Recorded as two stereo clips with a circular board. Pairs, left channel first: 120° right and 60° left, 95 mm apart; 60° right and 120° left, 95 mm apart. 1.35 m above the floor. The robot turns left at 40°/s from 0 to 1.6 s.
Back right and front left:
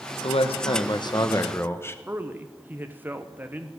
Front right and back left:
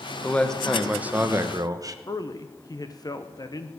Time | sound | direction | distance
0.2 | a man speaking | 130° right | 0.9 m
2.1 | a man speaking | 10° right | 0.8 m